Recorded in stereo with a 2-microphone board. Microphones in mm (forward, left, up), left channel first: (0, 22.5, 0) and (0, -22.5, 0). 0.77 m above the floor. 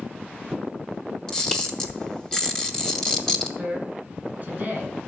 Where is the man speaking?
35° right (ahead or behind), 5.5 m.